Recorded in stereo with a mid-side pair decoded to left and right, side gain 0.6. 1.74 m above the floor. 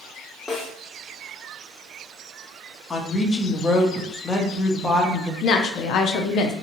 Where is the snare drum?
30° left, 1.3 m.